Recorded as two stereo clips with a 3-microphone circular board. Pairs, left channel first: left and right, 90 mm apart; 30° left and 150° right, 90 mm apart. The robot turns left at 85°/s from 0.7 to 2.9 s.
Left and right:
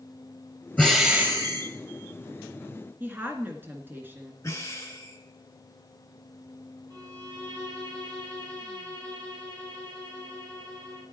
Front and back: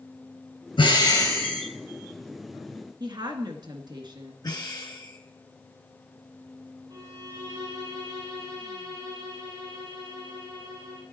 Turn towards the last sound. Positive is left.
turn(degrees=-120)